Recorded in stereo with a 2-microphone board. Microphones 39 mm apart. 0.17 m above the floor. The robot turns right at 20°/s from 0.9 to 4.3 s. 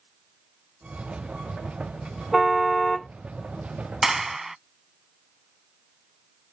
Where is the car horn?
5° right (ahead or behind); by 3.1 s 10° left (ahead or behind).